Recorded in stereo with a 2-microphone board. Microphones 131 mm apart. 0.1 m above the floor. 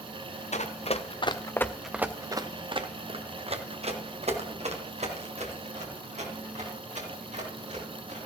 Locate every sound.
0.5 s running footsteps: 70° left (ahead or behind), 1.0 m; by 8.2 s 70° right (ahead or behind), 4.5 m